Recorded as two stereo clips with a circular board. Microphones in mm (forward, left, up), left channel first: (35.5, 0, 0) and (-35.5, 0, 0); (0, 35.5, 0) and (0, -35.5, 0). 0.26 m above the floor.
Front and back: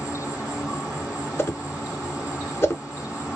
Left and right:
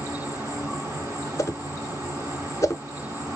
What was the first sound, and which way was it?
An insect, 90° right.